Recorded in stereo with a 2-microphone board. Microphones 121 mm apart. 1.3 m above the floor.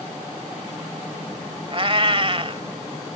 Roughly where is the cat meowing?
Right.